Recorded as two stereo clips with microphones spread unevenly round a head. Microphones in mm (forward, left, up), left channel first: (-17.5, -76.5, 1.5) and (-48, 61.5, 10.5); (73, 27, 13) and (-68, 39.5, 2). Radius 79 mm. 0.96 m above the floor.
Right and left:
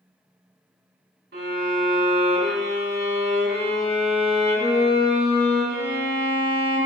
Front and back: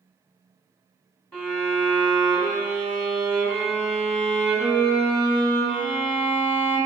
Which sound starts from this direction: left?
A violin, at 1.3 s.